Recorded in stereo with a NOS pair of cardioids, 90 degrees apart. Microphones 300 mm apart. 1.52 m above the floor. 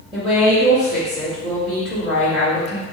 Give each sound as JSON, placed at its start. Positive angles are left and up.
{"t": 0.1, "sound": "a woman speaking", "azimuth_deg": 0, "distance_m": 1.5}